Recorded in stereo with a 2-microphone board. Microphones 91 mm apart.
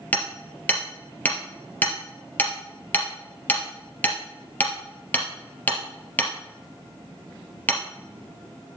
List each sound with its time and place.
0.1 s hammering: 20° left (ahead or behind), 2.5 m